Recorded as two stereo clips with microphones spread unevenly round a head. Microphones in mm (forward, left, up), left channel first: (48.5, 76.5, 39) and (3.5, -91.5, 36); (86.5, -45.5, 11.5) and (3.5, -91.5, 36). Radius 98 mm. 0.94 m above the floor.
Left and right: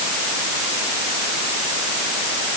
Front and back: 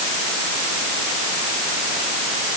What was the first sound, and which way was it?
Only background noise.